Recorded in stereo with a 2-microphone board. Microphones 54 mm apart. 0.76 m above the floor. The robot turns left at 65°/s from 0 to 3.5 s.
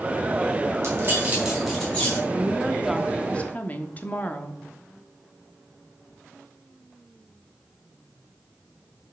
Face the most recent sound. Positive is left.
turn(degrees=150)